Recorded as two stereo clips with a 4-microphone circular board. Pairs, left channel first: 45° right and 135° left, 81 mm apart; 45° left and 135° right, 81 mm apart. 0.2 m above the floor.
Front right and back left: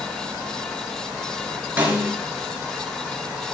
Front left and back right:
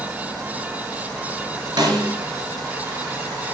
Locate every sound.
1.8 s a snare drum: 155° right, 2 m